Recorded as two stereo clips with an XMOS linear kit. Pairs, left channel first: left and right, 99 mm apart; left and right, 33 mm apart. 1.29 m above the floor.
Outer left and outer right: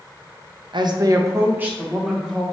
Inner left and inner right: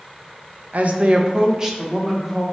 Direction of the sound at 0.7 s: 60° right (ahead or behind).